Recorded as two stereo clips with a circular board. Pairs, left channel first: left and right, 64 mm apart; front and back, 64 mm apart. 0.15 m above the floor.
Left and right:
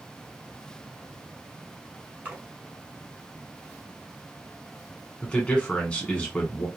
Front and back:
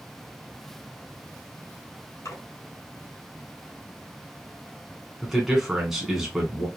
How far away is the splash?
About 1.4 m.